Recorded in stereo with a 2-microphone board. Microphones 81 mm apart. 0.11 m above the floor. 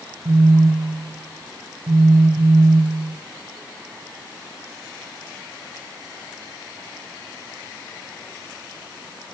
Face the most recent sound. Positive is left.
turn(degrees=-75)  # may be behind; listen again after turning